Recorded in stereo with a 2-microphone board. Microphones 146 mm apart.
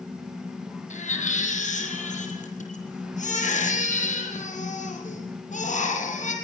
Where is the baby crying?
55° left (ahead or behind), 5 m.